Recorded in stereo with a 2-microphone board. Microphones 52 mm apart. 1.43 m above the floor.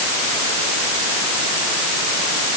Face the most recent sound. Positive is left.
No sound to turn to.